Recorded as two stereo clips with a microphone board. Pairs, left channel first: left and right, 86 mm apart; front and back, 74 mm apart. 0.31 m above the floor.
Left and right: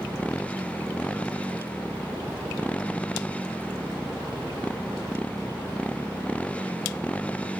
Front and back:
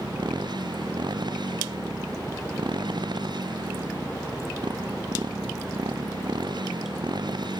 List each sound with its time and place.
0.0 s a motorcycle: 165° left